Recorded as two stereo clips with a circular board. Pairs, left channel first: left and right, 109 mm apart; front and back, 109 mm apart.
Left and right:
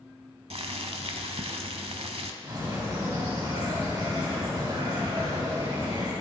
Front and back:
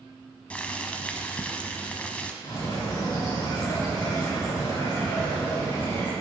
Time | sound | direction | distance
0.5 | boiling | 75° right | 0.7 m
2.4 | a bird | 40° right | 3.5 m